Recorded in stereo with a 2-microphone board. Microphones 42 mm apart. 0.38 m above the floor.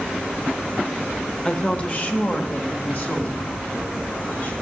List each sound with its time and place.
1.4 s a woman speaking: 20° left (ahead or behind), 0.9 m; by 4.5 s 55° left (ahead or behind), 4 m